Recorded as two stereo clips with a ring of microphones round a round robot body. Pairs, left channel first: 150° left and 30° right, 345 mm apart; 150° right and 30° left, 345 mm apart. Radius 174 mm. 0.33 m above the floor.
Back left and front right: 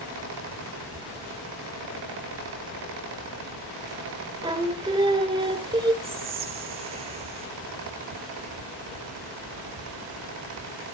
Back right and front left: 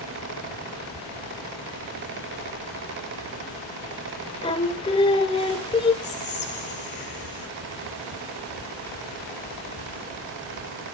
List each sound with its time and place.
4.4 s singing: 95° right, 1.0 m
6.0 s whispering: 100° right, 1.8 m